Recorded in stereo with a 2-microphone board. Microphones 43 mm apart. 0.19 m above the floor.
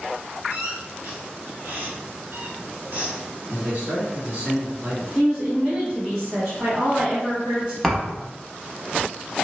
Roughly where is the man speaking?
Right.